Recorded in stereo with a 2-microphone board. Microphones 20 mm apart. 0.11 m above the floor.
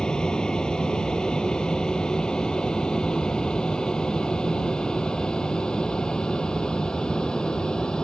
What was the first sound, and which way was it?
An aircraft, 40° left (ahead or behind).